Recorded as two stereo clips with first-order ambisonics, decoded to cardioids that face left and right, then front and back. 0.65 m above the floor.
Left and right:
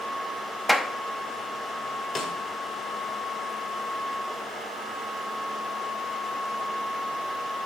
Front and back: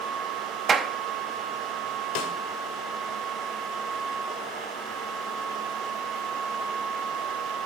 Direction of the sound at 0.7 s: Straight behind.